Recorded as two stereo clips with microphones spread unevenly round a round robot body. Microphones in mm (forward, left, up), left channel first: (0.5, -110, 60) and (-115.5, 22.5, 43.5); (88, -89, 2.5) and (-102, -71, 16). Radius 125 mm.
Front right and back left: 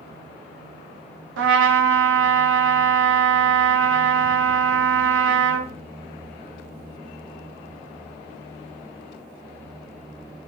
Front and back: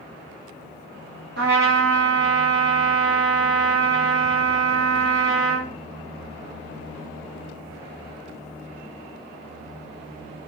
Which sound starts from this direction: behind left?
A trumpet, at 1.4 s.